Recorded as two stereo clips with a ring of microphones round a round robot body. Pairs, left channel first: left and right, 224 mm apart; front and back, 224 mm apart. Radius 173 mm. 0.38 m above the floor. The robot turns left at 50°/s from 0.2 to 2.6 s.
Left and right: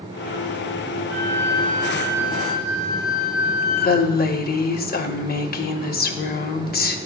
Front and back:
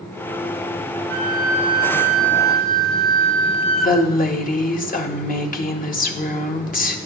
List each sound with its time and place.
1.1 s a flute: 145° left, 1.2 m; by 4.0 s 70° left, 1.2 m
3.8 s a woman speaking: 50° left, 1.4 m